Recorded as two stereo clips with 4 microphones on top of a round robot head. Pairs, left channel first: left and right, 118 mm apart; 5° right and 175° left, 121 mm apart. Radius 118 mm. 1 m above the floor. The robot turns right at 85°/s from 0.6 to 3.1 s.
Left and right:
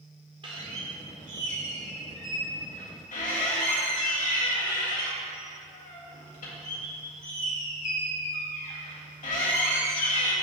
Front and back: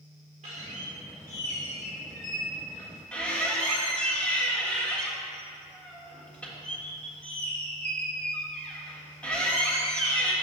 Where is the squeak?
140° right, 1.5 m; by 10.3 s 75° left, 1.5 m.